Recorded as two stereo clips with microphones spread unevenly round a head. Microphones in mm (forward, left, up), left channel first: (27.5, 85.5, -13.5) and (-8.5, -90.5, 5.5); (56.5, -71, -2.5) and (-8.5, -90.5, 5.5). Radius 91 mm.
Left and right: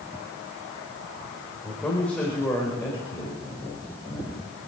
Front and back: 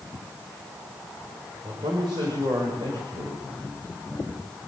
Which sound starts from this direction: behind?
A man speaking, at 1.6 s.